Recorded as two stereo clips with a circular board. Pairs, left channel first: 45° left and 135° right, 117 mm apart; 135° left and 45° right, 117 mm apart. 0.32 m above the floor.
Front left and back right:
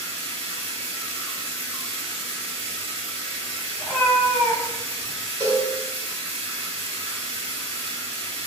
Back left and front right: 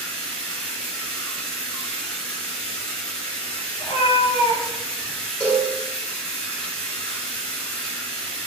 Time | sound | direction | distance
0.0 | running water | 145° right | 0.7 m
3.8 | a cat meowing | 125° left | 1.2 m
5.4 | a cowbell | 10° left | 1.5 m